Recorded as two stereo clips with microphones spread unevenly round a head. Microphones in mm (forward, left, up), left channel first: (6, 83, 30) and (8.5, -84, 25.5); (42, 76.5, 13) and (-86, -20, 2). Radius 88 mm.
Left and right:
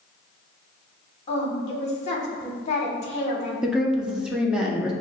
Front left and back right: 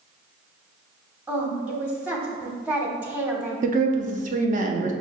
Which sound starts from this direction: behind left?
A woman speaking, at 1.3 s.